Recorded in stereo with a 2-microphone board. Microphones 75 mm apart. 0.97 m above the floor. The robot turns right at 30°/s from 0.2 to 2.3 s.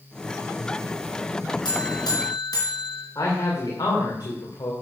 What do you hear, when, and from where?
1.6 s a buzzer: 75° left (ahead or behind), 3.5 m; by 3.0 s 60° left (ahead or behind), 3.5 m
3.1 s a man speaking: 60° left (ahead or behind), 3 m